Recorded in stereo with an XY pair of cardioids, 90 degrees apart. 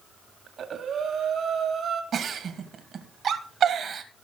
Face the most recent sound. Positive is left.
turn(degrees=-60)